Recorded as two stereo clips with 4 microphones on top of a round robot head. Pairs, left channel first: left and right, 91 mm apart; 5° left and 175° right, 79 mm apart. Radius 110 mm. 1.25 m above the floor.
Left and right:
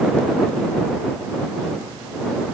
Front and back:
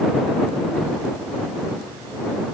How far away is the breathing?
No breathing in this recording.